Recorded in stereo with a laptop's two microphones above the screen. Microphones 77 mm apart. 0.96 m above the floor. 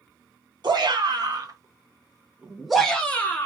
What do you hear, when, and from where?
0.6 s a shout: 60° right (ahead or behind), 1.1 m; by 3.5 s 25° left (ahead or behind), 0.9 m